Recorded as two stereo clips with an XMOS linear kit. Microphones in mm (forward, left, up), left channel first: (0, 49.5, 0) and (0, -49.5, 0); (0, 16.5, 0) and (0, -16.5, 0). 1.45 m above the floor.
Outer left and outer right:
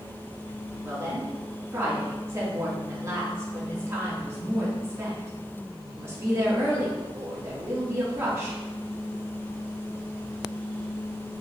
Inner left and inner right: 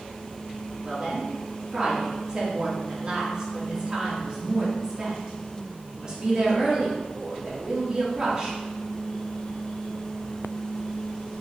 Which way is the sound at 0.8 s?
30° right (ahead or behind).